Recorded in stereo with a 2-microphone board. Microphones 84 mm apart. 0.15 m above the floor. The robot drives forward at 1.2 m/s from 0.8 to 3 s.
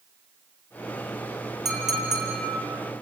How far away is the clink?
About 5 m.